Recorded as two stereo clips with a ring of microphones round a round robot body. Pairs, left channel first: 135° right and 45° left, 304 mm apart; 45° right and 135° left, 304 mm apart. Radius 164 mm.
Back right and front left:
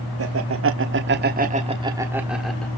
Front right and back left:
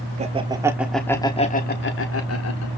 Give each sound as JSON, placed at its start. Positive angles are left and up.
{"t": 0.2, "sound": "laughter", "azimuth_deg": 70, "distance_m": 1.5}